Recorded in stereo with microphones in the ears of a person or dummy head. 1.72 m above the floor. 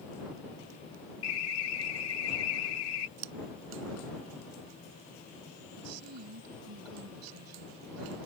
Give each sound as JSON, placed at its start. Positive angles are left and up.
{"t": 1.2, "sound": "an alarm", "side_deg": 75}
{"t": 3.2, "sound": "scissors", "side_deg": -55}
{"t": 5.8, "sound": "a woman speaking", "side_deg": -90}